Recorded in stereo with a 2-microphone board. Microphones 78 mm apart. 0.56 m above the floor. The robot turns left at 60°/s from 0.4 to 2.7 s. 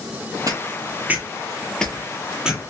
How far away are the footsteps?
About 0.8 m.